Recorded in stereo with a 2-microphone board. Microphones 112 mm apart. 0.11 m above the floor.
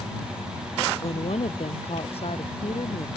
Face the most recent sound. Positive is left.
turn(degrees=60)  # may be behind; listen again after turning